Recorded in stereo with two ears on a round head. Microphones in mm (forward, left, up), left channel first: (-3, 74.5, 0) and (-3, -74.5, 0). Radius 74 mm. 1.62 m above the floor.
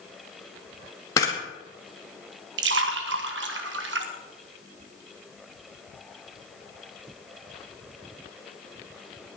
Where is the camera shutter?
20° left (ahead or behind), 2 m.